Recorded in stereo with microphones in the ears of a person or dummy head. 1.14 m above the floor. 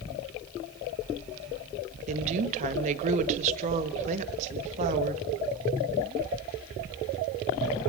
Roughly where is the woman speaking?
Right.